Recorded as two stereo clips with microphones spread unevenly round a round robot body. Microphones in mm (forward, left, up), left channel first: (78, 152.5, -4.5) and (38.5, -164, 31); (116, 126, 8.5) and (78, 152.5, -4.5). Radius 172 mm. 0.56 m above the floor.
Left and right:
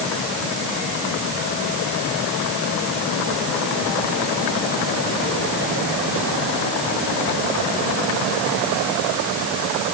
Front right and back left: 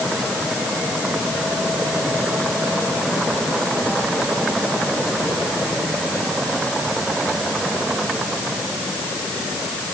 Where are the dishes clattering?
I don't hear dishes clattering.